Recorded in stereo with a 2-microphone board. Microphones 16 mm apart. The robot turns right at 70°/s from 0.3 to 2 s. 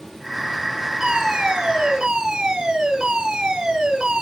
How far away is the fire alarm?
About 6 m.